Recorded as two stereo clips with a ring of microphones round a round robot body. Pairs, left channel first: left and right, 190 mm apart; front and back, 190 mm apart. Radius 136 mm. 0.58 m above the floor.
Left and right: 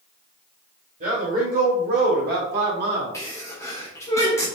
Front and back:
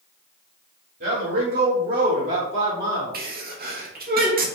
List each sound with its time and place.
1.0 s a man speaking: 145° right, 2 m; by 3.2 s 105° right, 1.5 m
3.1 s a sneeze: 165° left, 1.4 m